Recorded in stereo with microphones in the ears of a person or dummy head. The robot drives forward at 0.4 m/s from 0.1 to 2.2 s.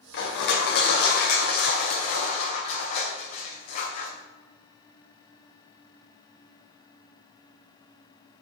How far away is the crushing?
About 2.5 m.